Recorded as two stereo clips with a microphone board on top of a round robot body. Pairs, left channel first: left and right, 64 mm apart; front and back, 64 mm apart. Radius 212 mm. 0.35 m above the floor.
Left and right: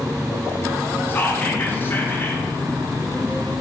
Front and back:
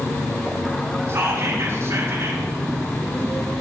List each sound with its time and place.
1.1 s whispering: 140° left, 1.8 m